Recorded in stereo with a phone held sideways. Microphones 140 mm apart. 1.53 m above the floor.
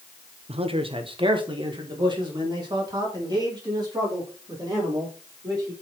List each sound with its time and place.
0.5 s a man speaking: 50° right (ahead or behind), 0.6 m; by 5.7 s 30° right (ahead or behind), 4 m